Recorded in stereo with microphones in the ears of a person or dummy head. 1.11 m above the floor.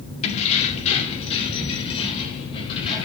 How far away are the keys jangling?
About 1.7 m.